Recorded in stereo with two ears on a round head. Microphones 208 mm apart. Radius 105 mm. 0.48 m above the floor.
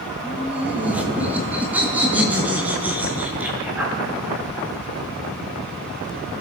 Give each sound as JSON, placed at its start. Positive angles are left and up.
{"t": 0.2, "sound": "laughter", "side_deg": -5, "distance_m": 3.5}